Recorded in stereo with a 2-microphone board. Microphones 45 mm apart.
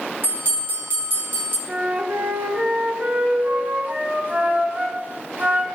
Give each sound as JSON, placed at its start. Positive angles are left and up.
{"t": 0.2, "sound": "a bell", "side_deg": -45, "distance_m": 3.0}
{"t": 1.7, "sound": "a flute", "side_deg": -45, "distance_m": 1.5}